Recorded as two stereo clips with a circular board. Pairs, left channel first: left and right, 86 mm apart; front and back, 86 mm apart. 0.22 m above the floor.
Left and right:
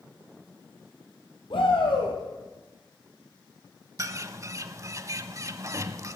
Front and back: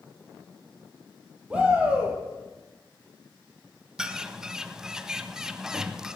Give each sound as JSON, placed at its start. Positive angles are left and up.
{"t": 1.5, "sound": "a shout", "azimuth_deg": 100, "distance_m": 6.0}
{"t": 4.0, "sound": "a bird", "azimuth_deg": -100, "distance_m": 0.8}